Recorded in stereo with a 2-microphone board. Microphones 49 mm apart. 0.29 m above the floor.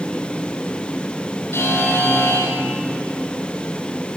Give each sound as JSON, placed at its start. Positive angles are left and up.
{"t": 1.5, "sound": "a buzzer", "side_deg": 70, "distance_m": 1.1}